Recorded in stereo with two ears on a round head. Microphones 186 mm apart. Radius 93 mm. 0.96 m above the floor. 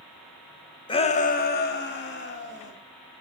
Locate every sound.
0.9 s a shout: 25° left (ahead or behind), 1.0 m; by 2.7 s 55° left (ahead or behind), 2 m